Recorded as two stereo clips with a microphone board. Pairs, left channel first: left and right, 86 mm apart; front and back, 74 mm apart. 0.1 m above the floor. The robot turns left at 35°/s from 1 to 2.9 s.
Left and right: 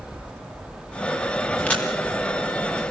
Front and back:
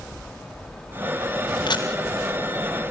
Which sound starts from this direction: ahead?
A camera shutter, at 1.7 s.